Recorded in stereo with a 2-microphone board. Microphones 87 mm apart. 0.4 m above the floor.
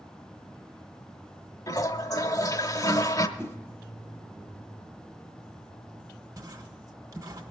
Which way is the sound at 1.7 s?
45° left (ahead or behind).